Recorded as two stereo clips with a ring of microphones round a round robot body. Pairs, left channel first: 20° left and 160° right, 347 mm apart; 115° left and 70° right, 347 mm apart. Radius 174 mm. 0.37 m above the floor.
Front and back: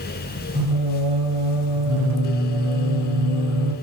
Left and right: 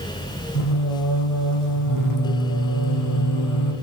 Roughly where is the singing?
Behind left.